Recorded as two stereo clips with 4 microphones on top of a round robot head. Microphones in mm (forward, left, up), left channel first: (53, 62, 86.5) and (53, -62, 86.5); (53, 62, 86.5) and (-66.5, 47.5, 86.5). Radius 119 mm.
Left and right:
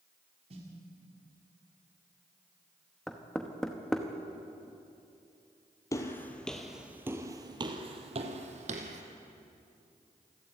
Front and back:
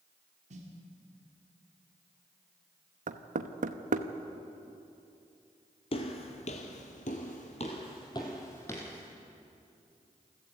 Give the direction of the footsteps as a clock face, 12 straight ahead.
11 o'clock.